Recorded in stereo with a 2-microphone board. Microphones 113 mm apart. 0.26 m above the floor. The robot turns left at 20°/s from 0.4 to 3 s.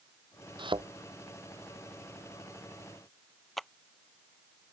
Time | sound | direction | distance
0.6 | a thud | 50° right (ahead or behind) | ?
3.6 | a clap | centre (ahead or behind) | ?